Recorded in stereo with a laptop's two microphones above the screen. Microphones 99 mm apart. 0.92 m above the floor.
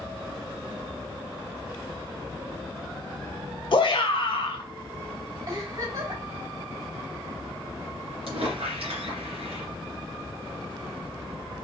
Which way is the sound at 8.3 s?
70° right (ahead or behind).